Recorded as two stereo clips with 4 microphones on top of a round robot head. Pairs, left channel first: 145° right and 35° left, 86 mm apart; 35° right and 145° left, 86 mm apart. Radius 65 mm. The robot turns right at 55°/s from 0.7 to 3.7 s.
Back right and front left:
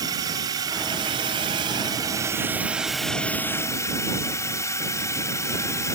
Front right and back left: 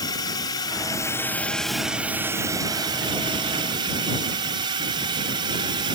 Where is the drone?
Straight ahead; by 6.0 s 165° left.